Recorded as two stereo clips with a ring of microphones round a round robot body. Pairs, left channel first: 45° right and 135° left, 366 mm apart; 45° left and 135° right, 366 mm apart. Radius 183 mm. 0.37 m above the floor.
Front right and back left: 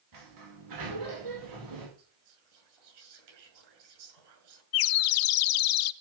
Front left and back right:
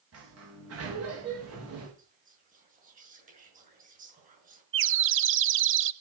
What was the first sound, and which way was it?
A sliding door, 175° left.